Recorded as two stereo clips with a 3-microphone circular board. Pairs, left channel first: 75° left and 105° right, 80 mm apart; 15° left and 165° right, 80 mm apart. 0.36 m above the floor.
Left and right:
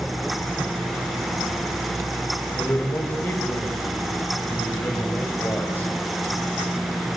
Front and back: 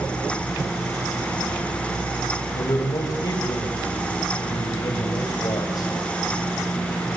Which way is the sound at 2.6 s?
15° left.